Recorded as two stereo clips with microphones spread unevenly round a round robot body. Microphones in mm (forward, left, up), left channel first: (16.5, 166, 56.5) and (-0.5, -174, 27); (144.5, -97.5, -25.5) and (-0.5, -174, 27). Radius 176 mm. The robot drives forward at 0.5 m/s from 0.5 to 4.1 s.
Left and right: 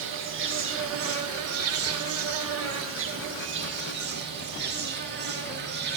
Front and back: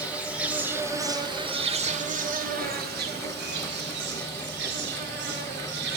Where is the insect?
55° right, 1.3 m; by 6.0 s 145° right, 1.7 m.